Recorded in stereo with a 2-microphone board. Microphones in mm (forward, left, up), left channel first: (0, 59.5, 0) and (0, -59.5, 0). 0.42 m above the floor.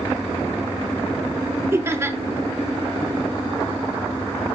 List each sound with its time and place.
1.7 s laughter: 20° right (ahead or behind), 0.8 m